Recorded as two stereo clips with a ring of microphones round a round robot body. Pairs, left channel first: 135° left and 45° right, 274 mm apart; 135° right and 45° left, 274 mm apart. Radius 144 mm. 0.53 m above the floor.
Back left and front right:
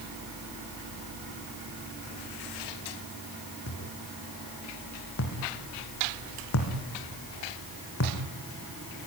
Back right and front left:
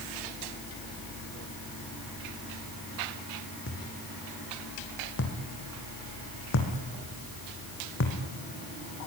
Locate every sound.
3.7 s a thud: straight behind, 4 m